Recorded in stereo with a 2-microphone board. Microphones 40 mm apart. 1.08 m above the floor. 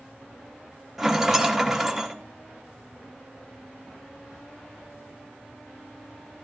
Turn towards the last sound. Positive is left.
turn(degrees=-5)  # may be behind; listen again after turning